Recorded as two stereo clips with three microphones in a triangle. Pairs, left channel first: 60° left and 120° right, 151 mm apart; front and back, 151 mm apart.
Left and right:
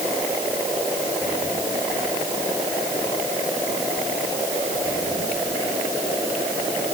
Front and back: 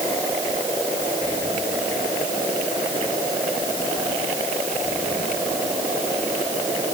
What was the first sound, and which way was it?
Only background noise.